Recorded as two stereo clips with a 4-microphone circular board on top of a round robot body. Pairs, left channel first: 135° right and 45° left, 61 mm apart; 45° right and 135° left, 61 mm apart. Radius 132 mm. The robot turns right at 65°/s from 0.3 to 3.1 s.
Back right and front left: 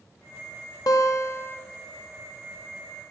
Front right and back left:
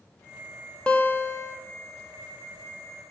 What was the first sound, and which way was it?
A guitar, 120° right.